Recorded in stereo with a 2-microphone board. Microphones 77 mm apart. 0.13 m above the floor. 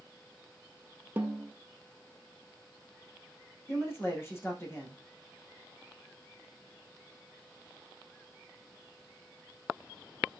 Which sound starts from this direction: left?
A man speaking, at 3.7 s.